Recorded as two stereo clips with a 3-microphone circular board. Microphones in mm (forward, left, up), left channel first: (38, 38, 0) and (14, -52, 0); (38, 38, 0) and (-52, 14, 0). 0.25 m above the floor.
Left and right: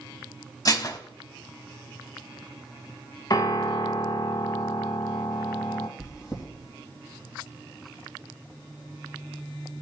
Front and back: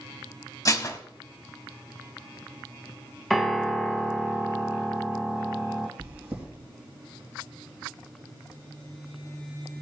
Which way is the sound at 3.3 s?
105° left.